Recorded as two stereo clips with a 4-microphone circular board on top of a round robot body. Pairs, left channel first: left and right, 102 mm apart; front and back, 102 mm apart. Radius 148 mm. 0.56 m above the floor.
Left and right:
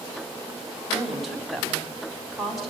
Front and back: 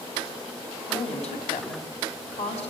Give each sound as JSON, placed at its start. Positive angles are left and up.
{"t": 0.9, "sound": "a woman speaking", "azimuth_deg": 0, "distance_m": 5.5}